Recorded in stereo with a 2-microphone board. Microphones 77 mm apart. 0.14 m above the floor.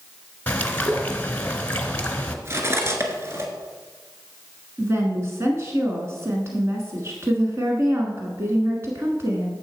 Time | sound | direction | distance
0.5 | a bird | 20° left (ahead or behind) | 1.1 m
2.5 | cutlery clinking | 35° right (ahead or behind) | 1.4 m
4.8 | a woman speaking | 35° right (ahead or behind) | 1.3 m